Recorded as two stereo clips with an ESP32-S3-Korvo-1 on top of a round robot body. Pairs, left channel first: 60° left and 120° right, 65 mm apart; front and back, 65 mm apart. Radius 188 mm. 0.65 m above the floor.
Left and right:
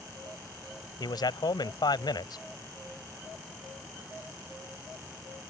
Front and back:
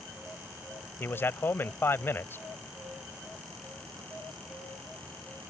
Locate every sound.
1.0 s a man speaking: 55° left